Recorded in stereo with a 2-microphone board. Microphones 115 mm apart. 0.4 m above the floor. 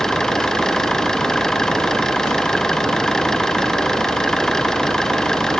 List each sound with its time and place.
0.0 s an engine running: 5° left (ahead or behind)